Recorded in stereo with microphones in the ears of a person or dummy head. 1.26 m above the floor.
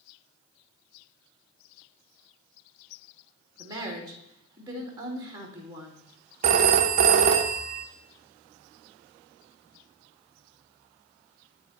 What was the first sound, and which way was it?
A woman speaking, 30° right (ahead or behind).